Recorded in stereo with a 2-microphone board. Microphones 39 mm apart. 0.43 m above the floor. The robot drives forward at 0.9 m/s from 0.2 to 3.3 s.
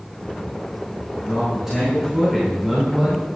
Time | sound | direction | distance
1.1 | a man speaking | 10° right (ahead or behind) | 5 m